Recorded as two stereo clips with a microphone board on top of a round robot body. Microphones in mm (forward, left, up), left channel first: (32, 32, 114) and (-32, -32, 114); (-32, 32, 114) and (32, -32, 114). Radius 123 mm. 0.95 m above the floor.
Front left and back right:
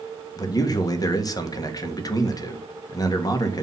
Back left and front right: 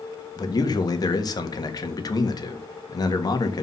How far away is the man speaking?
About 1.6 m.